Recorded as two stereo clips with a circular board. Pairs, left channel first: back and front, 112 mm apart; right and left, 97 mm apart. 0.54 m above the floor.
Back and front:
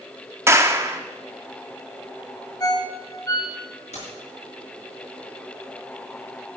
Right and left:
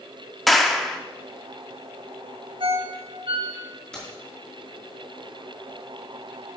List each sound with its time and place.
0.5 s a clap: 5° right, 0.9 m
2.6 s a ringtone: 120° left, 1.6 m
3.9 s keys jangling: 170° right, 5.5 m